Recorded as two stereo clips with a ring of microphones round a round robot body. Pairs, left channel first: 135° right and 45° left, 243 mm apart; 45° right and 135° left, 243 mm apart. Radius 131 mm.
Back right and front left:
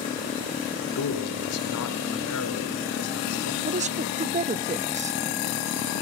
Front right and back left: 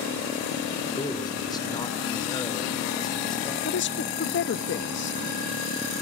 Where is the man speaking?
120° right, 3.5 m.